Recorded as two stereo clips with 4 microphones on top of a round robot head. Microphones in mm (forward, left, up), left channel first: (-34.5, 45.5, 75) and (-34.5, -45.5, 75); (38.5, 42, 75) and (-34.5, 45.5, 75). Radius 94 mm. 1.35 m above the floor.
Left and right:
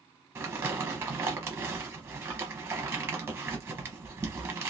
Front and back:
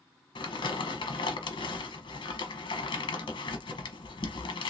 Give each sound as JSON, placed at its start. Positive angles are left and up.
{"t": 0.3, "sound": "crumpling", "azimuth_deg": -25, "distance_m": 0.9}